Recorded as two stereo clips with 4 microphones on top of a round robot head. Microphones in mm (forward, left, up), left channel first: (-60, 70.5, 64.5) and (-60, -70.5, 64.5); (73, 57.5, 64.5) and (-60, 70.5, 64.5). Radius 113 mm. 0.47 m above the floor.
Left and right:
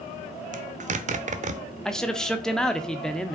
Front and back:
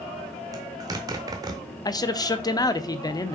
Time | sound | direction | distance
0.5 | a zipper | 120° right | 0.8 m
1.9 | a man speaking | 10° left | 0.7 m